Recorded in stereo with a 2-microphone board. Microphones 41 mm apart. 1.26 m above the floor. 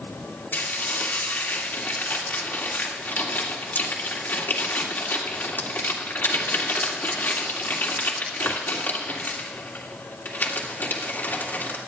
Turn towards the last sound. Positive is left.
turn(degrees=60)  # may be behind; listen again after turning